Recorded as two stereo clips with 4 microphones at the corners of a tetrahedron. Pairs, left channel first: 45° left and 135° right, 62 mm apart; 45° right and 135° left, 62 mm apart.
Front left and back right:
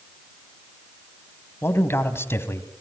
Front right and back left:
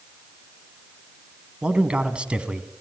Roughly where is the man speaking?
Left.